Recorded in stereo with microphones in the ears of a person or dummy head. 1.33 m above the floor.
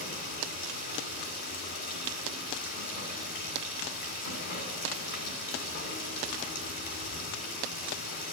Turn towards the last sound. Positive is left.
turn(degrees=65)  # may be behind; listen again after turning